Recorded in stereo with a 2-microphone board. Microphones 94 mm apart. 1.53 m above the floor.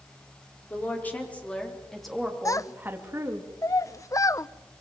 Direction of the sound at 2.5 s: 35° left (ahead or behind).